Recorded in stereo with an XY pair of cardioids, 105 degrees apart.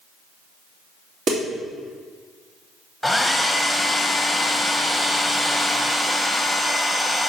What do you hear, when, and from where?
1.3 s a snare drum: 55° right, 2.5 m
3.0 s a hair dryer: straight ahead, 1.1 m